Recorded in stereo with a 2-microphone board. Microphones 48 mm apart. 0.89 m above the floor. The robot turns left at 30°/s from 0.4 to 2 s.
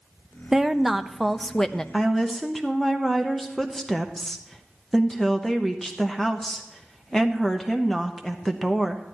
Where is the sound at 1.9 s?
5° left (ahead or behind), 0.7 m.